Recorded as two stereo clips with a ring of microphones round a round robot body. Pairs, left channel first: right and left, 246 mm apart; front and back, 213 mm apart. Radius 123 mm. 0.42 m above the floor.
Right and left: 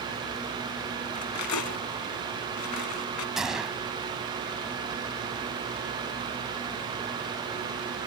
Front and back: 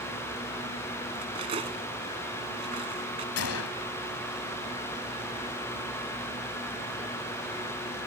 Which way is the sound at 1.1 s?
110° right.